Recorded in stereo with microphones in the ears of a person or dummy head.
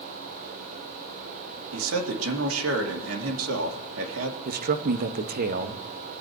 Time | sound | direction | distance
1.7 | a man speaking | 85° right | 2.5 m
4.5 | a man speaking | 50° right (ahead or behind) | 1.3 m